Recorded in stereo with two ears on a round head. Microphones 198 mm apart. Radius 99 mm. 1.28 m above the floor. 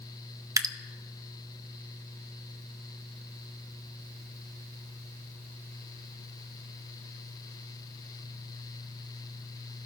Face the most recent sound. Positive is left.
turn(degrees=-15)  # may be behind; listen again after turning